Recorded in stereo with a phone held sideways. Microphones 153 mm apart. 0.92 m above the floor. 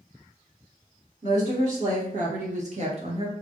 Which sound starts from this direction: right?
A woman speaking, at 1.2 s.